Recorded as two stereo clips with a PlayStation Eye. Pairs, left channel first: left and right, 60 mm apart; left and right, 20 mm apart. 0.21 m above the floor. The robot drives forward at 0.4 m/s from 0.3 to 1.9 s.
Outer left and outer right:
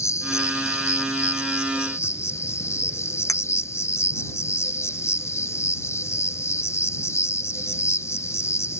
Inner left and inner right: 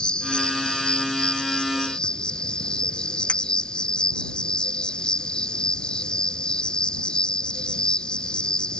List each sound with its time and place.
0.0 s an insect: 60° left (ahead or behind); by 8.8 s 50° left (ahead or behind)
3.3 s a clink: 70° left (ahead or behind)